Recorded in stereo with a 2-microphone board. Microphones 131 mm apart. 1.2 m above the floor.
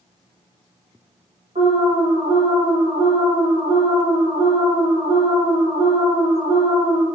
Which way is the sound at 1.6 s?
65° right (ahead or behind).